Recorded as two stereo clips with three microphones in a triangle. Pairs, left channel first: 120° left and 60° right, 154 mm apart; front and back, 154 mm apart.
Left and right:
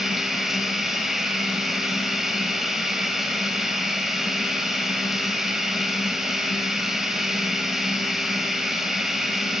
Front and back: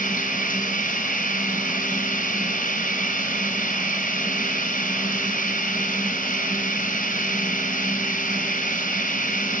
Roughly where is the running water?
Ahead left.